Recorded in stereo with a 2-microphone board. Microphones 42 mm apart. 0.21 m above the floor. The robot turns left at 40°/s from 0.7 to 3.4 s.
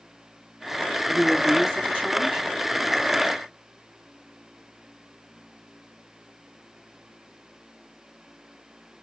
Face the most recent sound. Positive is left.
turn(degrees=-85)